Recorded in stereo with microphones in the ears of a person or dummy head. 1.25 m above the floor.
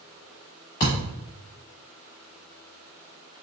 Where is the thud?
20° left (ahead or behind), 1.1 m.